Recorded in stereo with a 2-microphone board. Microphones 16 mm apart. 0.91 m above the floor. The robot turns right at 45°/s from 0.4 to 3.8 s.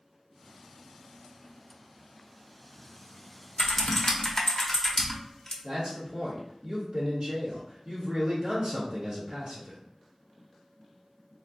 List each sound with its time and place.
3.6 s typing on a keyboard: 35° left (ahead or behind), 0.5 m; by 5.5 s 25° left (ahead or behind), 0.5 m
5.6 s a man speaking: 55° right (ahead or behind), 1.0 m